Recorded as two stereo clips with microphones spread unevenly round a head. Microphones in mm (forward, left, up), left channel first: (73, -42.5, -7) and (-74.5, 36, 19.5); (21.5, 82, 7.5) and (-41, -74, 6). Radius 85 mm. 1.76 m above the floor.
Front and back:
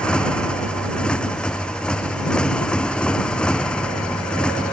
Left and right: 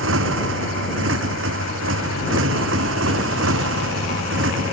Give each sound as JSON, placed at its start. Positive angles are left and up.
{"t": 0.0, "sound": "a motorcycle", "azimuth_deg": -115}